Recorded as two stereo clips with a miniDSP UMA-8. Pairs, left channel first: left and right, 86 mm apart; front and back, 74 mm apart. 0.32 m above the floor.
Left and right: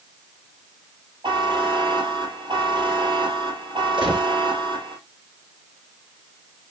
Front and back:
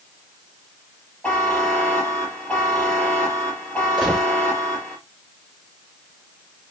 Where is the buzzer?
75° right, 2 m.